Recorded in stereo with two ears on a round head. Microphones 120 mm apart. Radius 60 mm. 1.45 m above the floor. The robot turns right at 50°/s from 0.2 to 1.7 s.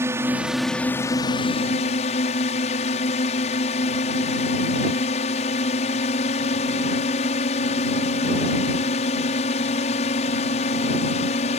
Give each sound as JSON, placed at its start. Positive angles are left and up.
{"t": 0.0, "sound": "a drone", "azimuth_deg": -20}